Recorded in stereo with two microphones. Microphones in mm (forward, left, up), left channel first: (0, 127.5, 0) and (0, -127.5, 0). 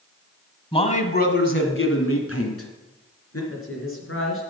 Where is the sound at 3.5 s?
55° left (ahead or behind), 3.5 m.